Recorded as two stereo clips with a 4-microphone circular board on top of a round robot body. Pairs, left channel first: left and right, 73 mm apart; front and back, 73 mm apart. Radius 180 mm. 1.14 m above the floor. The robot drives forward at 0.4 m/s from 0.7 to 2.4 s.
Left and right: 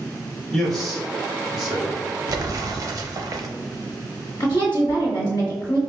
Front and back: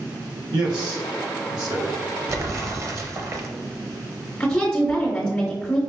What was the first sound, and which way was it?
A man speaking, 175° left.